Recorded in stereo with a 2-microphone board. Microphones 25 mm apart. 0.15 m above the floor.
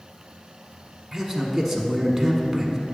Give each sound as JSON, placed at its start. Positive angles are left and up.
{"t": 1.1, "sound": "a man speaking", "side_deg": 0, "distance_m": 1.1}